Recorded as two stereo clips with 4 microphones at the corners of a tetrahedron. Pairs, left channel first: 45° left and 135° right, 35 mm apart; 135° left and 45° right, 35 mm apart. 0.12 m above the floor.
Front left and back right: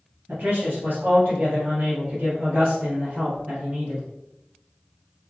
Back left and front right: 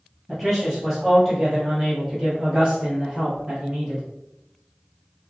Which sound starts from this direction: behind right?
A man speaking, at 0.3 s.